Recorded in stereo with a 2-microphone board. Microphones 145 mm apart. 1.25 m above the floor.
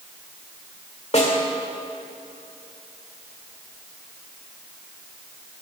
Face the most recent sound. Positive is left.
turn(degrees=50)  # may be behind; listen again after turning